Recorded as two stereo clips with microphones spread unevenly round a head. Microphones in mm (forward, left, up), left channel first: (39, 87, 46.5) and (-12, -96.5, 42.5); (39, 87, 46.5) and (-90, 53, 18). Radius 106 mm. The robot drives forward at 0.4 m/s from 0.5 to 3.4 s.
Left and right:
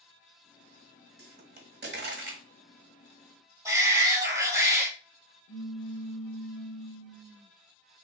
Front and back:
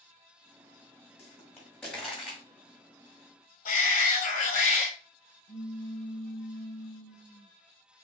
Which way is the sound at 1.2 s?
65° right.